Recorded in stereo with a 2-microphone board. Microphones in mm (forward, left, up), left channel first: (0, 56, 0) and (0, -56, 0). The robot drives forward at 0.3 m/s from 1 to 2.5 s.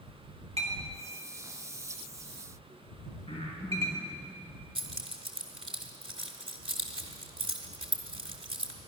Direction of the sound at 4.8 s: 50° right (ahead or behind).